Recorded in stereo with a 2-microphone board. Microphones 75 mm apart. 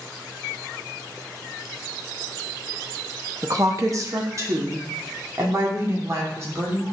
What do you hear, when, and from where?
3.4 s a woman speaking: 45° right (ahead or behind), 0.9 m; by 6.8 s 40° right (ahead or behind), 3 m